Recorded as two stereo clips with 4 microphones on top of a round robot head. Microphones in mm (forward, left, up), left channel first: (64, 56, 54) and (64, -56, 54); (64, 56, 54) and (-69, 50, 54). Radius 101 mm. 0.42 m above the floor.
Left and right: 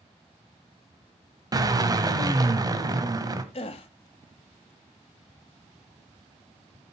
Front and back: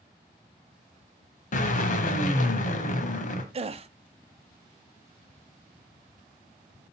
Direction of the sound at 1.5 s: 35° right.